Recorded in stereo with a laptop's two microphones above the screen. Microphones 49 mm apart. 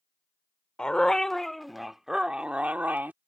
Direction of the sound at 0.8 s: 15° left (ahead or behind).